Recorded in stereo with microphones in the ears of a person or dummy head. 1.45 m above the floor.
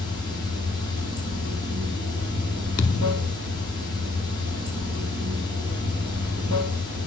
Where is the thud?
25° left (ahead or behind), 1.1 m.